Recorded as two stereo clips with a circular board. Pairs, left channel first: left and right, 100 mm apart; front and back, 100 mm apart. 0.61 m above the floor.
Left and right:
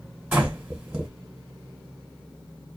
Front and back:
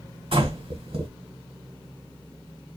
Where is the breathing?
165° right, 1.6 m.